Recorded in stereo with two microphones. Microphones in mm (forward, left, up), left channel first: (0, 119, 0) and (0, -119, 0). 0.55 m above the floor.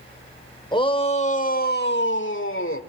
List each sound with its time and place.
0.7 s a shout: 20° left (ahead or behind), 2.5 m; by 2.8 s 60° left (ahead or behind), 1.9 m